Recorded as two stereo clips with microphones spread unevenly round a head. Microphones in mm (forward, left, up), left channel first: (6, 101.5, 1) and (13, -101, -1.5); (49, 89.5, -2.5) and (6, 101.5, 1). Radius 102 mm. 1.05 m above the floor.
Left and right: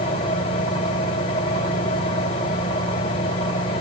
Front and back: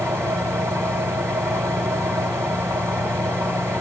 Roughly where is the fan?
Behind.